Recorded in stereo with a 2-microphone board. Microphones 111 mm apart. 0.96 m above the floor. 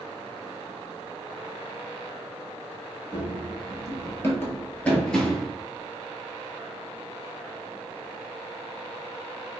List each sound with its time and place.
3.1 s running footsteps: 35° left (ahead or behind), 1.3 m; by 5.5 s centre (ahead or behind), 0.9 m